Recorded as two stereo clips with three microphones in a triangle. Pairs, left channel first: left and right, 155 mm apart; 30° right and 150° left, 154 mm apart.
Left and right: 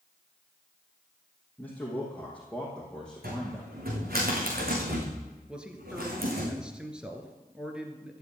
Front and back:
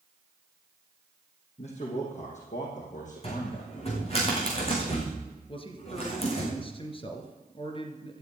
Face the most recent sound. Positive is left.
turn(degrees=-10)